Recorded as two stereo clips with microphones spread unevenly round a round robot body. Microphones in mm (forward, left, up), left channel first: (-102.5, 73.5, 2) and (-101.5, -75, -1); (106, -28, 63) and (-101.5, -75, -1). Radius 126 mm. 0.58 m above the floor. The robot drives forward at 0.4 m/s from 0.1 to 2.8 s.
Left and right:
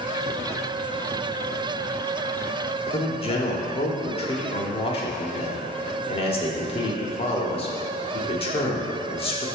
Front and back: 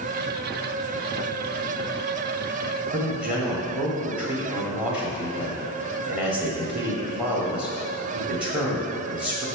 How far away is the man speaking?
About 1.2 m.